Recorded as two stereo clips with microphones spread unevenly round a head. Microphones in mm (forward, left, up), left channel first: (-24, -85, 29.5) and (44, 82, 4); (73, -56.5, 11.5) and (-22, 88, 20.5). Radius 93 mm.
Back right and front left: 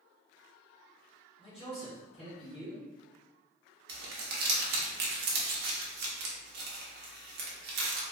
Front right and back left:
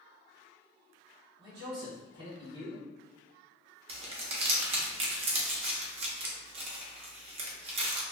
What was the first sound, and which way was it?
A man speaking, 175° right.